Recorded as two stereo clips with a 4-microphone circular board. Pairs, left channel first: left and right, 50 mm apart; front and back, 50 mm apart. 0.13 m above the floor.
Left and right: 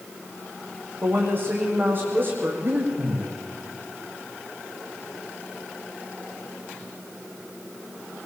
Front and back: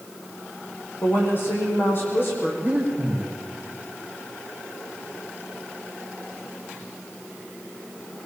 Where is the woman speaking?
45° right, 7 m.